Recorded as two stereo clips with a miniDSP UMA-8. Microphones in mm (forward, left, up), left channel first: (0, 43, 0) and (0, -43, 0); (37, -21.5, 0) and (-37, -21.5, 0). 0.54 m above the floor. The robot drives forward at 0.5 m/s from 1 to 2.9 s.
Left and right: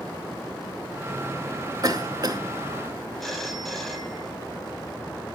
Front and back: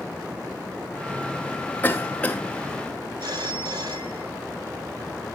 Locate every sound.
1.8 s a cough: 65° right, 1.8 m; by 2.4 s 80° right, 1.7 m
3.2 s a phone ringing: 175° left, 1.9 m